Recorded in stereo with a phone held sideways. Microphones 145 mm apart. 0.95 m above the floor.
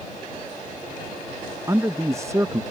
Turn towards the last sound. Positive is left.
turn(degrees=-20)  # may be behind; listen again after turning